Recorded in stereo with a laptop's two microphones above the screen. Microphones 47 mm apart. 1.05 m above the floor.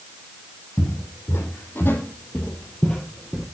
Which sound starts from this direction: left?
Footsteps, at 0.8 s.